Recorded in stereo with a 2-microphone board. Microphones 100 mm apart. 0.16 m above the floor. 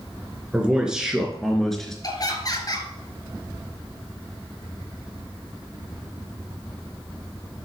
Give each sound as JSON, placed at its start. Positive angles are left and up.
{"t": 0.5, "sound": "a man speaking", "side_deg": -10, "distance_m": 2.5}
{"t": 2.0, "sound": "laughter", "side_deg": 40, "distance_m": 2.5}